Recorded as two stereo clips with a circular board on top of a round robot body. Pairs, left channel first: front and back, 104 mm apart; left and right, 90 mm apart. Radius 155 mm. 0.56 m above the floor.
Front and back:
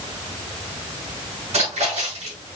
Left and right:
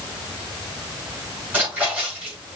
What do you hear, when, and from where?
1.5 s a splash: 160° right, 4 m